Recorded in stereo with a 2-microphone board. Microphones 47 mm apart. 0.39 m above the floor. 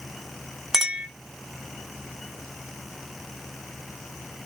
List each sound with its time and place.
0.7 s a clink: 10° right (ahead or behind), 0.9 m